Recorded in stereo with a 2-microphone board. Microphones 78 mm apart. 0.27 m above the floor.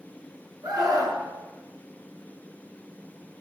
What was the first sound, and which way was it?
A scream, 55° right (ahead or behind).